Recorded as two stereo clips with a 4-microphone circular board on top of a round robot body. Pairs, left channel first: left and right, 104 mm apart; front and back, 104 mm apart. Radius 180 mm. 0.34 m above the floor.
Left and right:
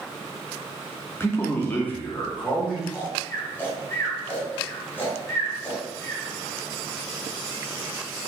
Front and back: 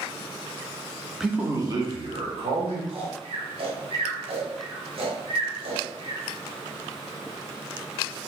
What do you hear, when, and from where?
1.2 s a man speaking: 95° left, 0.9 m; by 2.8 s 170° left, 1.9 m
2.9 s snoring: 160° left, 1.1 m